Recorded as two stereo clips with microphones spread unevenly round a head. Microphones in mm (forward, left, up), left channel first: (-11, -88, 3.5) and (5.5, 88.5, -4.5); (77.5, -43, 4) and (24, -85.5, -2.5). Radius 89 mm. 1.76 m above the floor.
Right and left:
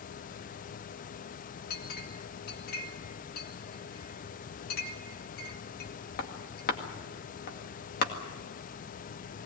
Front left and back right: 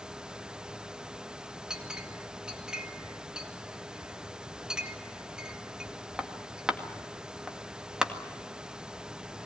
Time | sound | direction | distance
1.7 | a clink | 60° right | 2 m